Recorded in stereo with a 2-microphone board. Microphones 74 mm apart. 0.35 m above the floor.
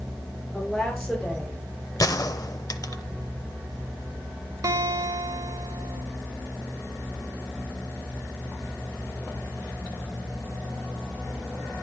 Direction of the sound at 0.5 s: 5° left (ahead or behind).